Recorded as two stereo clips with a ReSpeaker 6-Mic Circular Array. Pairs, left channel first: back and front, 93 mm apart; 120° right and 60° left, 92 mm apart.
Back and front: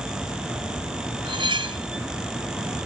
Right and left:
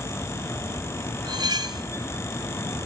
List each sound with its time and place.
1.2 s cutlery clinking: 20° left, 1.3 m